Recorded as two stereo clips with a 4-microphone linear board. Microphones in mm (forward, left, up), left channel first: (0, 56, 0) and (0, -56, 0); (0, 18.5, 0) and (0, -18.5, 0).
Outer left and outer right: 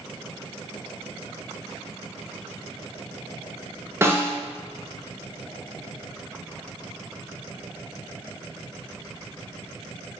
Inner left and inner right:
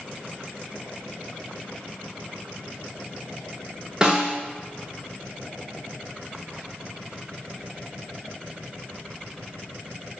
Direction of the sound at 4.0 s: 20° right (ahead or behind).